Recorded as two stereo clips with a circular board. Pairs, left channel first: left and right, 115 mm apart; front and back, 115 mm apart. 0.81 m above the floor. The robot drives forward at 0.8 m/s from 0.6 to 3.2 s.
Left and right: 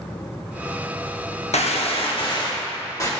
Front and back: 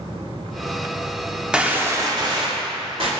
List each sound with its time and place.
1.5 s a gunshot: 95° left, 0.8 m; by 3.1 s 150° left, 1.6 m